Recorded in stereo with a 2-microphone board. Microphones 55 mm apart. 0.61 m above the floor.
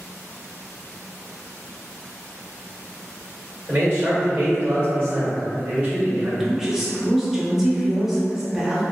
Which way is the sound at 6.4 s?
10° right (ahead or behind).